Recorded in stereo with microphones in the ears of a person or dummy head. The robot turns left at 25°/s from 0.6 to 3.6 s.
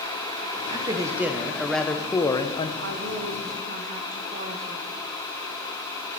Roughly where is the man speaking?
Behind right.